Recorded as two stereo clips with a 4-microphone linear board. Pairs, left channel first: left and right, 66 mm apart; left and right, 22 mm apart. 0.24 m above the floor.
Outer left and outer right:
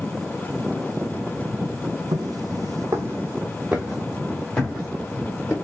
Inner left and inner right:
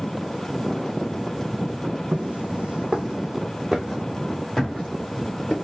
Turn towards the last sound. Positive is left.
turn(degrees=15)  # may be behind; listen again after turning